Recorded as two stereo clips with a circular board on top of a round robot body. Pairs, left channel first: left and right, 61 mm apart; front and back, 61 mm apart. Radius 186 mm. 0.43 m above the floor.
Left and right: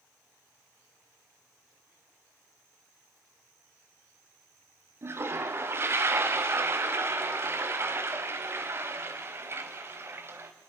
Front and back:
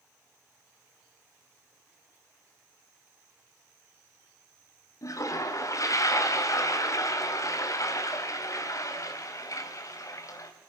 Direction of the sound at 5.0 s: 40° right.